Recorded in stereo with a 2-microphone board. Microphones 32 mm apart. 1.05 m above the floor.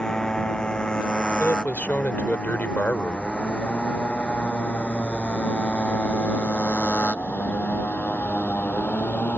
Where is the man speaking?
60° left (ahead or behind).